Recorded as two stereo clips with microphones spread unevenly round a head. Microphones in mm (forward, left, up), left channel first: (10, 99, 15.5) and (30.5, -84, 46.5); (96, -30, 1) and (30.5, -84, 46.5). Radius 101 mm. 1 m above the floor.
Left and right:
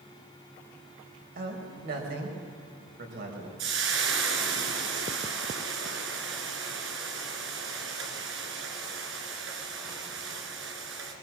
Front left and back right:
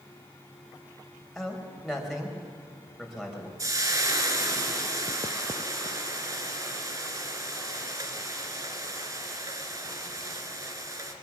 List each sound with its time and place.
1.4 s a man speaking: 55° right, 5 m
3.6 s frying: 105° right, 3 m